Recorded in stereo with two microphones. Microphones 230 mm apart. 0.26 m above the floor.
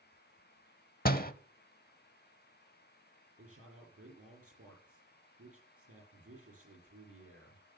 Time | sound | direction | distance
1.1 | a door slam | 40° left (ahead or behind) | 0.8 m
3.4 | a man speaking | 75° right (ahead or behind) | 6.5 m